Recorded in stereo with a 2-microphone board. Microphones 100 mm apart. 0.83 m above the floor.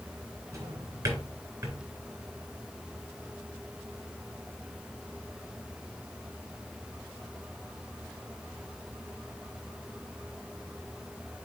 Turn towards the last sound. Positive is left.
turn(degrees=-30)  # may be behind; listen again after turning